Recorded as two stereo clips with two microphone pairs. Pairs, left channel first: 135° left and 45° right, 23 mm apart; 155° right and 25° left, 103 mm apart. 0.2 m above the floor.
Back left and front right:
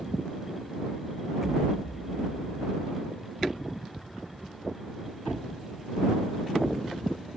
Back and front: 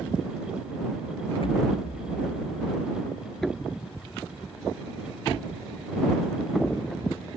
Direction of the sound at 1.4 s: 120° right.